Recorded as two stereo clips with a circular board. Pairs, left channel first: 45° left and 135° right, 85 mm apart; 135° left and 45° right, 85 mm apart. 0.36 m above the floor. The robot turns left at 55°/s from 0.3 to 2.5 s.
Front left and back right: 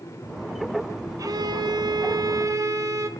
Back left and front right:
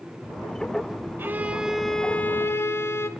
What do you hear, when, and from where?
1.2 s a violin: 100° right, 0.5 m; by 3.1 s 175° right, 0.5 m